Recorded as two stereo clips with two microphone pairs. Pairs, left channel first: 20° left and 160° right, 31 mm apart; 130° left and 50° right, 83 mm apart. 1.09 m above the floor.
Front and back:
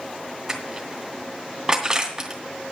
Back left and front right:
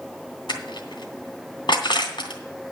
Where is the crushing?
125° left, 2.5 m.